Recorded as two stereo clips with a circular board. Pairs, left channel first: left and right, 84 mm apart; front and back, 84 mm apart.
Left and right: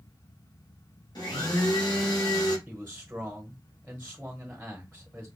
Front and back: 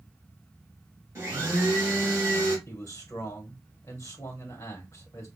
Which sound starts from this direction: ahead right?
A man speaking, at 2.7 s.